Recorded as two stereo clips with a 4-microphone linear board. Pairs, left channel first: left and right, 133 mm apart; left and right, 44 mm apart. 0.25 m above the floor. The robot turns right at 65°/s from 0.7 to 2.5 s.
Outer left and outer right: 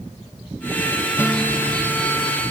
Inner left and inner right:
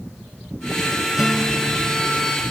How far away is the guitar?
About 1.1 m.